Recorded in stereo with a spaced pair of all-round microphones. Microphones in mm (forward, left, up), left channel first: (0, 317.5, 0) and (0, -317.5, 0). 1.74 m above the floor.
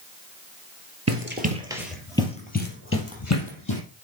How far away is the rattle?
No rattle in this recording.